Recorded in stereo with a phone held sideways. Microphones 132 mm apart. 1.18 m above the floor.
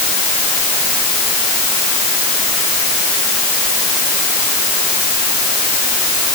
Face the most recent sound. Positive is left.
No sound to turn to.